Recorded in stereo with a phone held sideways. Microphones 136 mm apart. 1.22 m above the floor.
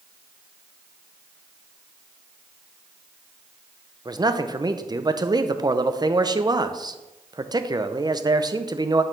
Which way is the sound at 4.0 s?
30° right (ahead or behind).